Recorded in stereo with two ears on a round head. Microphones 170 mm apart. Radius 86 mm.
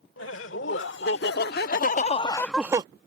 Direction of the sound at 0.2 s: 70° left (ahead or behind).